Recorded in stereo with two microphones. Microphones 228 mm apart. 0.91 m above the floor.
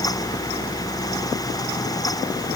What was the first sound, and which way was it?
Only background noise.